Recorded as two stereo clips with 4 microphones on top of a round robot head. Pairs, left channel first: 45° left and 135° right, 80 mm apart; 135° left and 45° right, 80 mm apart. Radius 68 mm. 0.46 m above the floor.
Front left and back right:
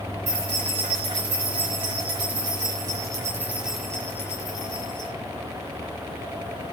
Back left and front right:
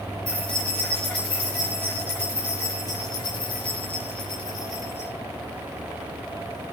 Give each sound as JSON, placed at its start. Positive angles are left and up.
{"t": 0.3, "sound": "keys jangling", "azimuth_deg": -150, "distance_m": 4.0}